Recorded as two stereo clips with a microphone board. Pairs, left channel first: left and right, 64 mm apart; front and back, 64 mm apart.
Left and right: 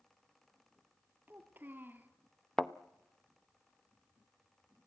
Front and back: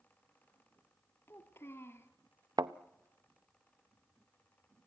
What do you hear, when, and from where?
1.3 s a child speaking: 35° right, 1.5 m
2.6 s a thud: 175° left, 0.7 m